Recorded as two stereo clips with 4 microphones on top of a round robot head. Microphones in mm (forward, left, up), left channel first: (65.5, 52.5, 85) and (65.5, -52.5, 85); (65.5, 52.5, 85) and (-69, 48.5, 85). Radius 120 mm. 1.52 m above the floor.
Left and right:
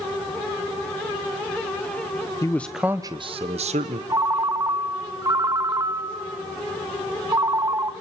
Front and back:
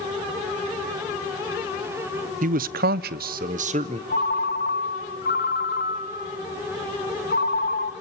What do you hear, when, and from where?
2.4 s a man speaking: 160° left, 0.5 m; by 4.0 s 125° right, 0.8 m
4.1 s a ringtone: 35° right, 0.7 m